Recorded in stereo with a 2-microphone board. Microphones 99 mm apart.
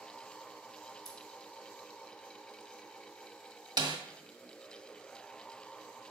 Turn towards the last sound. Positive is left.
turn(degrees=-50)  # may be behind; listen again after turning